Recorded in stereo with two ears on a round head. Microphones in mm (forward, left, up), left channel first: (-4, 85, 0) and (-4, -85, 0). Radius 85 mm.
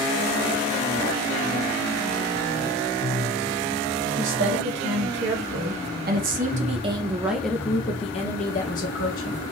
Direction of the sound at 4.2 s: 75° right (ahead or behind).